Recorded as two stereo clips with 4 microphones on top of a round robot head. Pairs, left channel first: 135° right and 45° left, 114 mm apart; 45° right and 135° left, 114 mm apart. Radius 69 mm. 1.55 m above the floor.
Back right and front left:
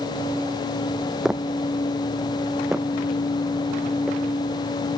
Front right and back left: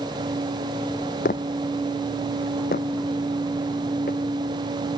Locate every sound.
1.2 s footsteps: 40° right